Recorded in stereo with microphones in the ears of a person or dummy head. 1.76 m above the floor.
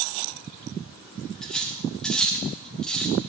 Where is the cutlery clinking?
5° left (ahead or behind), 1.2 m.